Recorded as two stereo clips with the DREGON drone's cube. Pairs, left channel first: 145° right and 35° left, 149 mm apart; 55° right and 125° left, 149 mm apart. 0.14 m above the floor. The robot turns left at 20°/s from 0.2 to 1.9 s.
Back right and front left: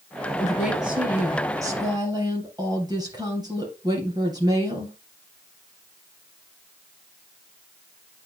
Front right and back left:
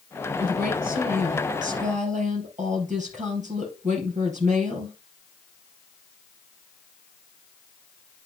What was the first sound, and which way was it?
A woman speaking, 125° left.